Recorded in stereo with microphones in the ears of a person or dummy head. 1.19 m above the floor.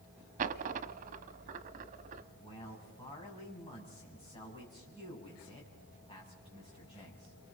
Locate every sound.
0.4 s a dropped coin: 45° right (ahead or behind), 1.0 m
2.3 s a man speaking: 25° left (ahead or behind), 7.5 m